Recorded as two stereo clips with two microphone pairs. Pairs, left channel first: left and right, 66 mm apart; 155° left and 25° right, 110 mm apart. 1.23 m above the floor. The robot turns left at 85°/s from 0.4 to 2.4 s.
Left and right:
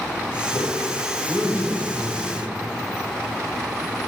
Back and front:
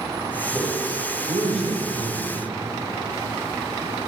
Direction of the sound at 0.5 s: 55° left.